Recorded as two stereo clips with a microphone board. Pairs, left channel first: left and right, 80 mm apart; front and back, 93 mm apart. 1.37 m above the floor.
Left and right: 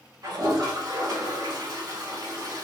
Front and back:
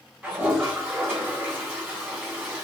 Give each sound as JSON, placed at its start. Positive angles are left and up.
{"t": 0.2, "sound": "a toilet flushing", "azimuth_deg": -110, "distance_m": 1.7}